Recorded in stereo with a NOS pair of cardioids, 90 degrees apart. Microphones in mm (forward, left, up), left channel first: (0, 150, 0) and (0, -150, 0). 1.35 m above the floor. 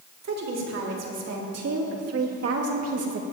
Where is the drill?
I don't hear a drill.